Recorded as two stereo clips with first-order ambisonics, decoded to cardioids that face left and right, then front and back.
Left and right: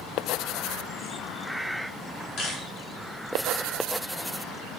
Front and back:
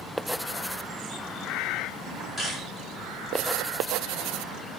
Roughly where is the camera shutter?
Left.